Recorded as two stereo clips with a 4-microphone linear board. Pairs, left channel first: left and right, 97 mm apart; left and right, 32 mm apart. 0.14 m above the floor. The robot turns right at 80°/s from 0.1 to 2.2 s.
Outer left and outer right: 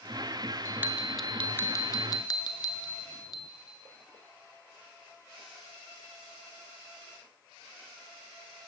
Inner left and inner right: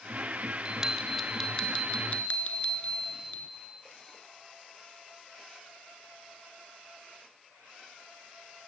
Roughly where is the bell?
Ahead right.